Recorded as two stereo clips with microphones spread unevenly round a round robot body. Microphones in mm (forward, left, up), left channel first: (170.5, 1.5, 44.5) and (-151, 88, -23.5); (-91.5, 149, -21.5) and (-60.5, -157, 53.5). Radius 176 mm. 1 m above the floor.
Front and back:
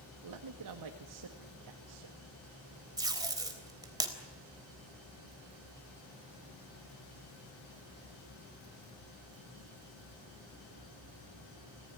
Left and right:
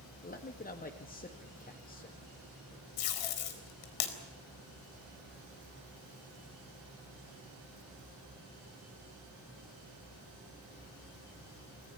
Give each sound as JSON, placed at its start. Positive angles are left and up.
{"t": 0.2, "sound": "a man speaking", "azimuth_deg": 150, "distance_m": 1.6}
{"t": 3.0, "sound": "tape being pulled", "azimuth_deg": 85, "distance_m": 3.5}